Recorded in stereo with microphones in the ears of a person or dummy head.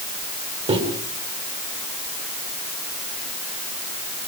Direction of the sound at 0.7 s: 30° right (ahead or behind).